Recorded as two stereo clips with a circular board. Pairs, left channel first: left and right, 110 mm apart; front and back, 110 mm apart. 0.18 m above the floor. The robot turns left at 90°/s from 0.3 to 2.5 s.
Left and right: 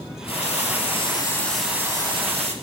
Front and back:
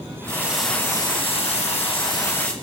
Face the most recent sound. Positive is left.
turn(degrees=-85)